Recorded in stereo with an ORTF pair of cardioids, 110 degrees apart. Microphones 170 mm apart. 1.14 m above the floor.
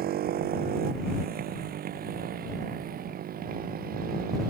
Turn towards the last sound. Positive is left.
turn(degrees=-60)